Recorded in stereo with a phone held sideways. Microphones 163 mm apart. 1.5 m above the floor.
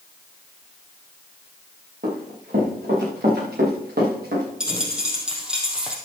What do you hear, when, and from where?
2.0 s running footsteps: 75° right (ahead or behind), 6 m; by 4.5 s 80° right, 7.5 m
4.6 s a dropped coin: 5° right (ahead or behind), 2.5 m